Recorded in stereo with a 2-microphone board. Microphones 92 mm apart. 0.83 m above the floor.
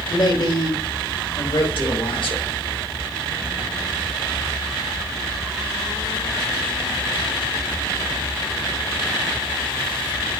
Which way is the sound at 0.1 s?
60° left (ahead or behind).